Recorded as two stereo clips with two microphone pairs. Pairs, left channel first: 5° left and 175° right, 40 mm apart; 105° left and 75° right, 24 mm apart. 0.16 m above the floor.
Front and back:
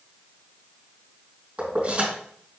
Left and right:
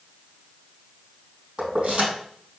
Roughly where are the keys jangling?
Behind right.